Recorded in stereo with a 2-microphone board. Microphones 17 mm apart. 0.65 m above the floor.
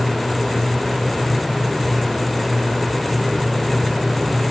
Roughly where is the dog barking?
I don't hear a dog barking.